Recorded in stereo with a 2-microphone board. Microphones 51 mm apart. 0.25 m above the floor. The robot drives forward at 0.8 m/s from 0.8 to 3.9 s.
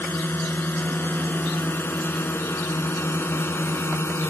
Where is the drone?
45° left (ahead or behind); by 4.3 s 55° left (ahead or behind).